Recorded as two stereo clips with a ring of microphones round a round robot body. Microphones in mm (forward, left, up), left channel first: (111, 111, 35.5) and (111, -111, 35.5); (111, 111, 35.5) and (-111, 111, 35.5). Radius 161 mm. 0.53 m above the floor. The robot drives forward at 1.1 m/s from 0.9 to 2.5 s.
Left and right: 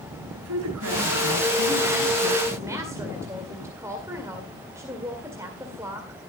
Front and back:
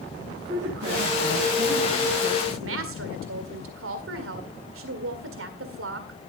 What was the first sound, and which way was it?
A man speaking, 105° right.